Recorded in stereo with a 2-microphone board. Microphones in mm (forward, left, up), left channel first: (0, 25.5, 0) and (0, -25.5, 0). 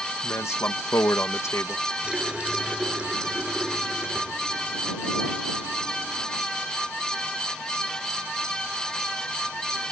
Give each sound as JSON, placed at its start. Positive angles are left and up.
{"t": 0.2, "sound": "a man speaking", "side_deg": 70}
{"t": 2.0, "sound": "a running tap", "side_deg": -20}